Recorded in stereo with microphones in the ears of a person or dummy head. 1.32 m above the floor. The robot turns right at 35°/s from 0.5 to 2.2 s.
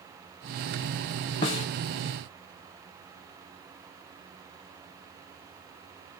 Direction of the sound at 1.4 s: 20° left (ahead or behind).